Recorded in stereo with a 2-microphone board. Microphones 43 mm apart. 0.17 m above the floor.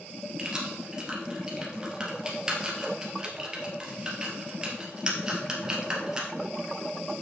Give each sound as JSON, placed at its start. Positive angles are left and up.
{"t": 0.4, "sound": "keys jangling", "side_deg": -15, "distance_m": 2.5}